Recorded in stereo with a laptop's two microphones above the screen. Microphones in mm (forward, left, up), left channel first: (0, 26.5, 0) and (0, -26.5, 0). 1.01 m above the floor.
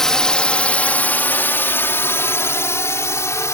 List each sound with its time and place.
0.0 s a drone: 10° left (ahead or behind); by 3.6 s 65° left (ahead or behind)